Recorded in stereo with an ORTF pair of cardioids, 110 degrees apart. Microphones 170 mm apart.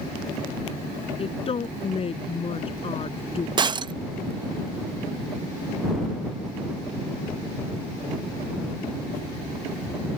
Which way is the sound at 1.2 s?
35° left.